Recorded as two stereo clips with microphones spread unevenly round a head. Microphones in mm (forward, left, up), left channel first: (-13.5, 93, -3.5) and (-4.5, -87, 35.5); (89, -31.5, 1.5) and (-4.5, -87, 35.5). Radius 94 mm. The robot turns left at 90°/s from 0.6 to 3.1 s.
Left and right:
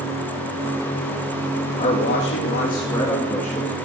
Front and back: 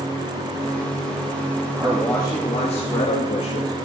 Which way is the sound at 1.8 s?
135° left.